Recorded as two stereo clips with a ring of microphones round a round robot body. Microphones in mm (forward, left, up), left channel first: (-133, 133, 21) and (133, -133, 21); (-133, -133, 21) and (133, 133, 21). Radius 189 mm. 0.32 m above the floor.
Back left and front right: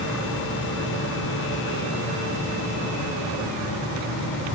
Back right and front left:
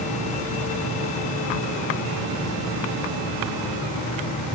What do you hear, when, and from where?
Only background noise.